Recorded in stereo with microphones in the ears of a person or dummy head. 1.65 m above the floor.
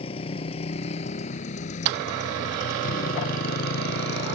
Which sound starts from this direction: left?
A motorcycle, at 0.0 s.